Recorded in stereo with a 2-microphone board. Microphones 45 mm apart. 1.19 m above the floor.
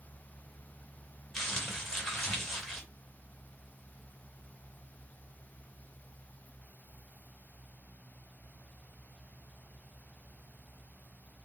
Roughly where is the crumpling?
Centre.